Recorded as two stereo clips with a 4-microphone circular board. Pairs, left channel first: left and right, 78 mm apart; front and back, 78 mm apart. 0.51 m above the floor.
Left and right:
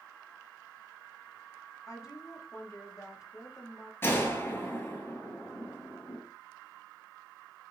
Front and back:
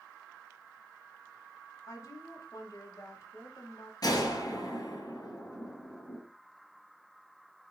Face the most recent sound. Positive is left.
turn(degrees=30)